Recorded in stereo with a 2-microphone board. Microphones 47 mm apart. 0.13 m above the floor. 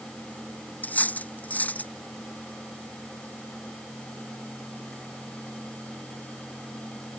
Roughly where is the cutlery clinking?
Left.